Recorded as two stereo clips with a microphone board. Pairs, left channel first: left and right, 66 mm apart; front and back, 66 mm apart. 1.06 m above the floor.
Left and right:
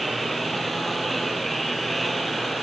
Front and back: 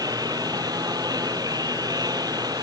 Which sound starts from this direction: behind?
A lawn mower, at 0.0 s.